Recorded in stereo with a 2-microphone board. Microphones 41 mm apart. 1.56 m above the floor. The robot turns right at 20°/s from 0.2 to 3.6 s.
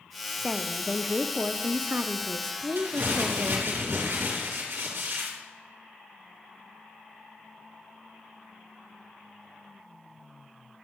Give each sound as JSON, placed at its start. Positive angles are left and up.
{"t": 0.4, "sound": "a woman speaking", "azimuth_deg": -170, "distance_m": 0.5}
{"t": 2.8, "sound": "crumpling", "side_deg": -65, "distance_m": 3.5}